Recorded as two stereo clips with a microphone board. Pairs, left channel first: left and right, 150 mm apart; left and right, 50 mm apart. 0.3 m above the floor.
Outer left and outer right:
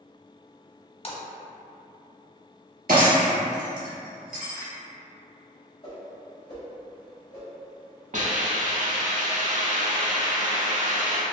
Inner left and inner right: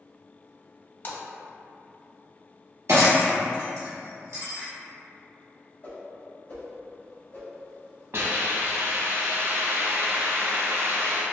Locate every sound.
1.0 s a splash: 40° left (ahead or behind), 0.6 m
2.9 s breaking glass: 80° right, 1.3 m
5.8 s a whoosh: 35° left (ahead or behind), 1.2 m
8.1 s a hiss: 55° right (ahead or behind), 0.6 m